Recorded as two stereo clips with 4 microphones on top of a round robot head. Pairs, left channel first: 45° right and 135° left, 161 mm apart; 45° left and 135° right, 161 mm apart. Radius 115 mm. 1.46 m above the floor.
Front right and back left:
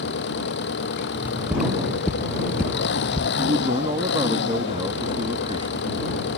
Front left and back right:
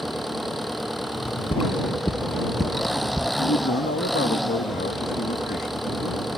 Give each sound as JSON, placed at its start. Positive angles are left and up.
{"t": 0.0, "sound": "an engine running", "azimuth_deg": -45}
{"t": 1.1, "sound": "footsteps", "azimuth_deg": 65}
{"t": 3.4, "sound": "a man speaking", "azimuth_deg": 75}